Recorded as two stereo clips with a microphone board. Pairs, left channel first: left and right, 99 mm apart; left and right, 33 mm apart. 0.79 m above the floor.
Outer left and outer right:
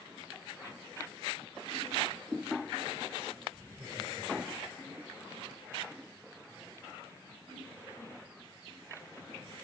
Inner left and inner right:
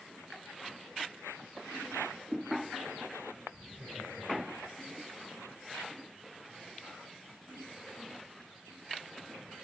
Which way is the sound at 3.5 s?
10° right (ahead or behind).